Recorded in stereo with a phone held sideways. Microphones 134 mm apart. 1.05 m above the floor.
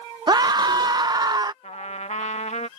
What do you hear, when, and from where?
0.3 s a scream: 35° right (ahead or behind)
1.6 s a trumpet: 65° left (ahead or behind)